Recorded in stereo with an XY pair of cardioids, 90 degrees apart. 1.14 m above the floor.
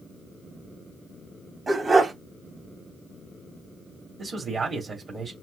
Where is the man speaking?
50° right, 2.5 m.